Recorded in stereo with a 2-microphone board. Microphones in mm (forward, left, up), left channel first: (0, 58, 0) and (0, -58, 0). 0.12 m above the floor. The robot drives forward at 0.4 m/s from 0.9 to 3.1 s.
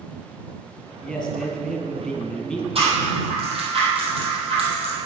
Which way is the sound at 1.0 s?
5° left (ahead or behind).